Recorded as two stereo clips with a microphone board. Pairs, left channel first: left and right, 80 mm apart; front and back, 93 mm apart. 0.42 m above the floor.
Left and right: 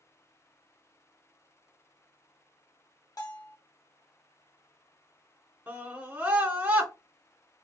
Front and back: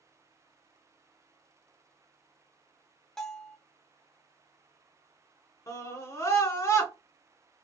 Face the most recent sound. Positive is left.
turn(degrees=-30)